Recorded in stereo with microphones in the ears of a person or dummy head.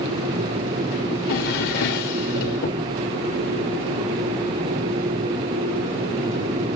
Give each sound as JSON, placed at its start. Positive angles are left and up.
{"t": 1.1, "sound": "a drawer", "side_deg": 50, "distance_m": 1.8}